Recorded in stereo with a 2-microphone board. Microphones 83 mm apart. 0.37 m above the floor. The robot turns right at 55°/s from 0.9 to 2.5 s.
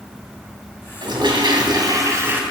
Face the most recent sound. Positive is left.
turn(degrees=-20)